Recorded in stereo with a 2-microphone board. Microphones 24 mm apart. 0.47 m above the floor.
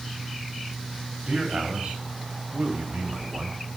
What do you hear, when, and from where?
1.3 s a man speaking: 55° right (ahead or behind), 3.5 m; by 3.6 s 65° right (ahead or behind), 3 m